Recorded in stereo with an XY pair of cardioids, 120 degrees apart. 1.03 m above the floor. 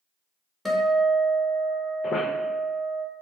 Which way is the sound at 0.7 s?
5° left.